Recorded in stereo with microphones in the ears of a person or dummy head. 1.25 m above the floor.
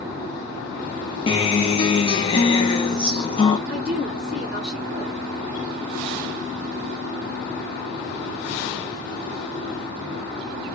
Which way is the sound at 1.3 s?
30° left (ahead or behind).